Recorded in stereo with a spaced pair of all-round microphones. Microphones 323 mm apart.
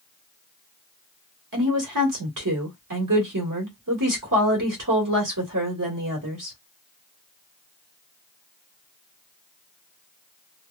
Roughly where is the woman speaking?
Right.